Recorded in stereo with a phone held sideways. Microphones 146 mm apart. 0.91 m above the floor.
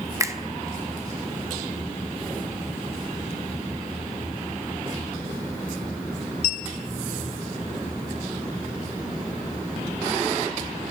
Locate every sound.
0.2 s a finger snap: 20° right (ahead or behind), 0.7 m